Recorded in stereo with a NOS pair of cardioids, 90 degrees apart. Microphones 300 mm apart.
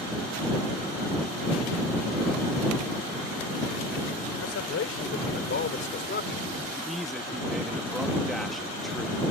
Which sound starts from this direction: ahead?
A man speaking, at 6.7 s.